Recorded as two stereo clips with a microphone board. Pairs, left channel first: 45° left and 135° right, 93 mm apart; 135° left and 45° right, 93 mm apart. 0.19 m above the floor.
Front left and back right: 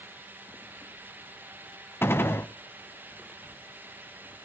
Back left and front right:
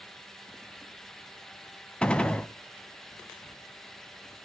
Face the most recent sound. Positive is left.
turn(degrees=70)